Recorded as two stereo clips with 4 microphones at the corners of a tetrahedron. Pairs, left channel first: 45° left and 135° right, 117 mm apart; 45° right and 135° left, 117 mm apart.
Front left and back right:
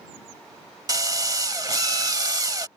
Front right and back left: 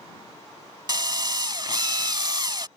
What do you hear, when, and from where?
0.9 s a drill: 175° left